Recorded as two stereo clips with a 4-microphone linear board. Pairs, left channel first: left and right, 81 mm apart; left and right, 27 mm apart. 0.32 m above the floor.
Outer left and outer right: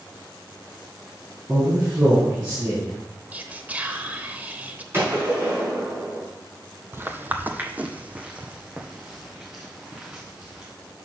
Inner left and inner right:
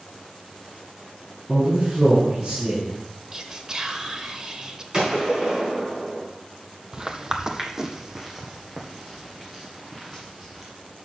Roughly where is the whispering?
Right.